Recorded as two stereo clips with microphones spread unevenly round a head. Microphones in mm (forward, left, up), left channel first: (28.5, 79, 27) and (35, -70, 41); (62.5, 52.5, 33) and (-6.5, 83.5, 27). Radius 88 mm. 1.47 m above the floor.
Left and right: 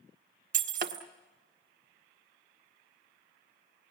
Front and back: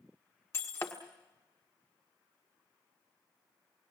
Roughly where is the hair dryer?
I don't hear a hair dryer.